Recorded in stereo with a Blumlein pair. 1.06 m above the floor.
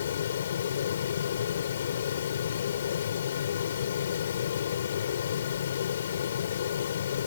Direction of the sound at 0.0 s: 65° left.